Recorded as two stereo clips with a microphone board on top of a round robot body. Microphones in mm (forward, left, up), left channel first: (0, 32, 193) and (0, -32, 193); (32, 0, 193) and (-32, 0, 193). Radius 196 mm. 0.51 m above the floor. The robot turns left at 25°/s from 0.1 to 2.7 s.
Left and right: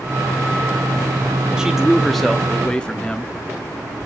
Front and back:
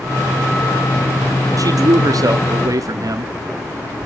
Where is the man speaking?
170° right, 1.2 m; by 3.3 s 165° left, 1.2 m.